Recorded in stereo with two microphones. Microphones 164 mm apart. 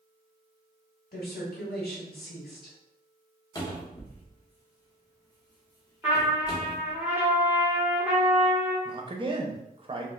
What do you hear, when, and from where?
1.1 s a woman speaking: 75° left (ahead or behind), 1.7 m
3.5 s a cupboard door: 20° left (ahead or behind), 0.7 m
6.0 s a trumpet: 10° right (ahead or behind), 1.1 m
8.8 s a man speaking: 30° right (ahead or behind), 0.6 m